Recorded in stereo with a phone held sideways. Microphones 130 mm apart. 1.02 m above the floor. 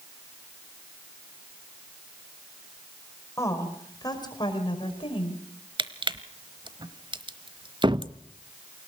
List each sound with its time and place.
3.4 s a woman speaking: 20° left (ahead or behind), 5 m; by 5.4 s 50° left (ahead or behind), 5 m
5.8 s crushing: 40° right (ahead or behind), 1.0 m
7.8 s a cupboard door: 35° right (ahead or behind), 0.7 m